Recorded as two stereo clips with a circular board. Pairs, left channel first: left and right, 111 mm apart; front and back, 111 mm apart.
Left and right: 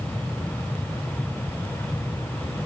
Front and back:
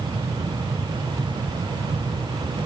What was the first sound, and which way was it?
Only background noise.